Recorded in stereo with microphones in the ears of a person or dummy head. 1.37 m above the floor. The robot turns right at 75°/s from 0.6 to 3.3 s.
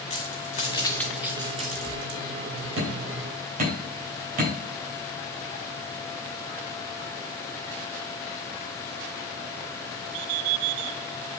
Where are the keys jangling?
35° left (ahead or behind), 1.1 m; by 2.7 s 60° right (ahead or behind), 1.1 m.